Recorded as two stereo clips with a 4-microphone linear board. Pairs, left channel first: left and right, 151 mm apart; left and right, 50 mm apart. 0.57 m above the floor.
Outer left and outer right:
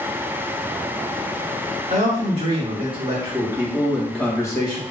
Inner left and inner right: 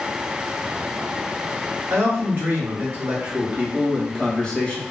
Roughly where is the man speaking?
Right.